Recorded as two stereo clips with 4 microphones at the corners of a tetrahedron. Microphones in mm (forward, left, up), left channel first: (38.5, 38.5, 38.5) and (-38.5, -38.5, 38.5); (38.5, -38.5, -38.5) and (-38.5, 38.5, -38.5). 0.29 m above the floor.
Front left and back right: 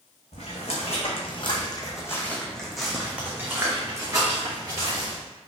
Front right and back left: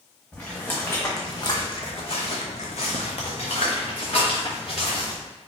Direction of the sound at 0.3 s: 35° left.